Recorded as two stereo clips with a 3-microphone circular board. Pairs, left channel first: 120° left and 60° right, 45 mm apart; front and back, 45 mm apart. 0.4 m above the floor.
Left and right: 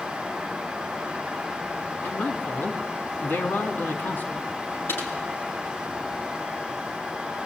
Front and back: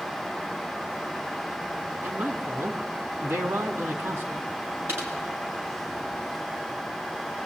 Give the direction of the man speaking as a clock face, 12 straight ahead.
7 o'clock.